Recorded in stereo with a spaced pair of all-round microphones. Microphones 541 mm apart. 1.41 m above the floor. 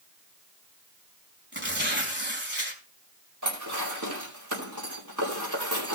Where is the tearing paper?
20° right (ahead or behind), 3.5 m.